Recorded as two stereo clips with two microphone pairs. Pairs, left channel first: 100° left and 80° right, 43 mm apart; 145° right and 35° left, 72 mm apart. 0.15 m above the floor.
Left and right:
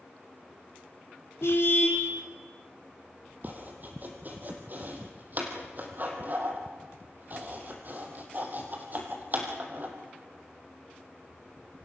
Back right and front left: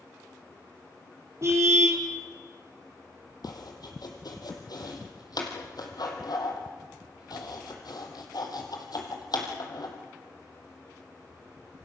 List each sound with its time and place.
1.4 s a car horn: 80° left, 3.5 m
3.4 s chopping: 125° right, 3.5 m